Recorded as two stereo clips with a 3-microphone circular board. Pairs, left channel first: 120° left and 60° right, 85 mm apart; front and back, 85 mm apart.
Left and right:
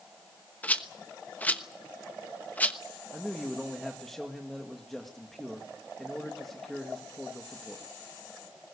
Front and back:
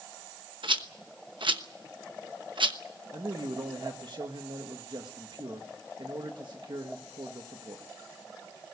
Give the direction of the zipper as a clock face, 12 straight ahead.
No zipper in this recording.